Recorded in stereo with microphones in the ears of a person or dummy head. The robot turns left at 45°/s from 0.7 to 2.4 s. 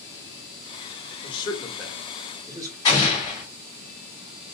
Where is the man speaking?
30° left (ahead or behind), 0.9 m; by 2.8 s 20° right (ahead or behind), 0.9 m.